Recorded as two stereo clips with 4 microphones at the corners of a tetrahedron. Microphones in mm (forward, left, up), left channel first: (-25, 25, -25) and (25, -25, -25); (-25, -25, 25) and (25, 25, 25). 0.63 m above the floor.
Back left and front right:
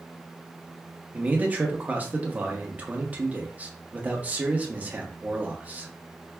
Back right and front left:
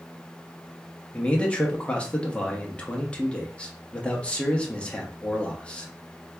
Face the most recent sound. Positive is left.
turn(degrees=-80)